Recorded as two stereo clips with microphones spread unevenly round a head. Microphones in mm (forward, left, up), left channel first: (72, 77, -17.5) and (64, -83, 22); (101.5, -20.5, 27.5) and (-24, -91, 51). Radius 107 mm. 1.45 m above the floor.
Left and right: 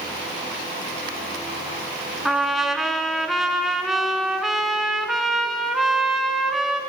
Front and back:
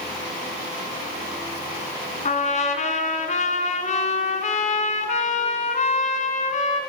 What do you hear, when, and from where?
2.2 s a trumpet: 10° right, 3 m